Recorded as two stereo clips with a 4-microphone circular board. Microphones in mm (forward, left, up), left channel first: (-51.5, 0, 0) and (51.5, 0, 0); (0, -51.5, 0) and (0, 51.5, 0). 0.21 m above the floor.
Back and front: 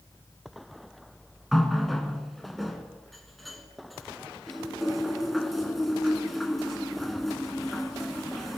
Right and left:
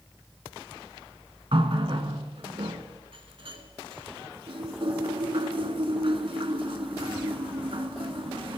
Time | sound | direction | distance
1.5 | a running tap | 90° left | 1.5 m